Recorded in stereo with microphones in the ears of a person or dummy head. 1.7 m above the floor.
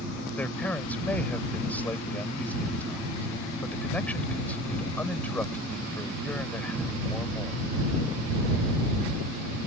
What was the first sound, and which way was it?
A man speaking, 10° left (ahead or behind).